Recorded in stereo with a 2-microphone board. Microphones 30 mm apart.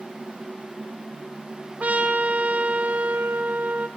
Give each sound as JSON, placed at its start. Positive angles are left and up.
{"t": 1.8, "sound": "a trumpet", "side_deg": -55, "distance_m": 3.0}